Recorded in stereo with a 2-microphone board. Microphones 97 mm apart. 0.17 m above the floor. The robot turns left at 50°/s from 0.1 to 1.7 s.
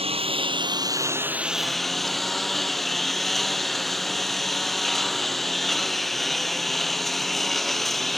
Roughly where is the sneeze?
I don't hear a sneeze.